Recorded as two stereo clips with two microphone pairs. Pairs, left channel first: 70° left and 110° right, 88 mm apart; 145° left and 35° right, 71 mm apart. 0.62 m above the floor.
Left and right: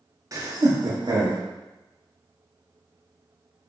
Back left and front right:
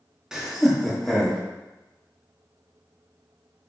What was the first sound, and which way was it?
Laughter, 115° right.